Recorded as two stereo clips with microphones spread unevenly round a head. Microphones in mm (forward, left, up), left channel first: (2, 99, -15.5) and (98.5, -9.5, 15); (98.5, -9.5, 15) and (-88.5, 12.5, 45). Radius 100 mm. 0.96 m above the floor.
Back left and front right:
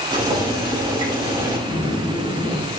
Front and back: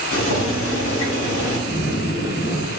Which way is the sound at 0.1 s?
10° left.